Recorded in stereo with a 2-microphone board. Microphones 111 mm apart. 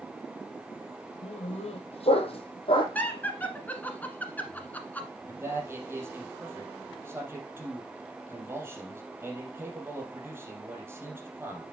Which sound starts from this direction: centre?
Laughter, at 3.0 s.